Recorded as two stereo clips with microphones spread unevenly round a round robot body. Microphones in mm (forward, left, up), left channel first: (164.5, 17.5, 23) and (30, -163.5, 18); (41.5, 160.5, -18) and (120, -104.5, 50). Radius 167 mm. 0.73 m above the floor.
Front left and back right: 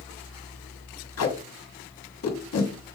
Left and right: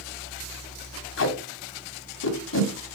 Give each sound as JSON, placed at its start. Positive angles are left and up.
{"t": 1.2, "sound": "tape being pulled", "azimuth_deg": 70, "distance_m": 1.3}